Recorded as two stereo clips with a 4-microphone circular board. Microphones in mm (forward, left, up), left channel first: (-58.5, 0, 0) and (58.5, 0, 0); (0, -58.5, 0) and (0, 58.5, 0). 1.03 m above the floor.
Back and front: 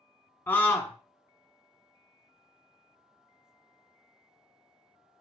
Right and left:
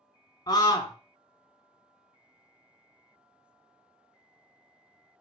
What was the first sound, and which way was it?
A scream, 120° right.